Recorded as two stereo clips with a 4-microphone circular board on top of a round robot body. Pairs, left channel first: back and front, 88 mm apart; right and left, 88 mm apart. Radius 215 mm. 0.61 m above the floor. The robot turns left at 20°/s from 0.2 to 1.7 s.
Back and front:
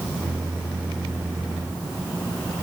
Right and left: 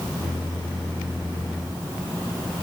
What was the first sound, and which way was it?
Only background noise.